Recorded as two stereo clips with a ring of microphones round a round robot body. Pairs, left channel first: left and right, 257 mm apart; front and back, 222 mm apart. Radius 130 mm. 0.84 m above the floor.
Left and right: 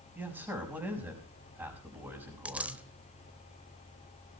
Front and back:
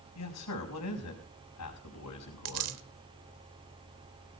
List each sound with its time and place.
0.1 s a man speaking: 10° right, 5 m
2.5 s a dropped coin: 175° right, 1.0 m